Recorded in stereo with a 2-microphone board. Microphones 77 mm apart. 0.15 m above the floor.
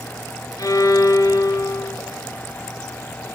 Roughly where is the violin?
Left.